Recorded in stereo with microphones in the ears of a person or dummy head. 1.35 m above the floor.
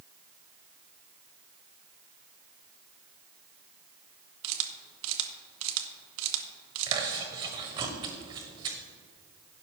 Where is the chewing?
25° right (ahead or behind), 1.6 m.